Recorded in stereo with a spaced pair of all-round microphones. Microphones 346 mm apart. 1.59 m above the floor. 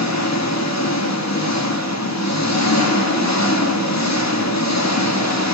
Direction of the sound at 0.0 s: 50° left (ahead or behind).